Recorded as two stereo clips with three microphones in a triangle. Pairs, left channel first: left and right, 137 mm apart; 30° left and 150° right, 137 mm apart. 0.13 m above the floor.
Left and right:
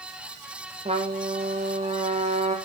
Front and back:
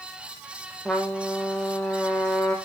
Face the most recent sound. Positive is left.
turn(degrees=-55)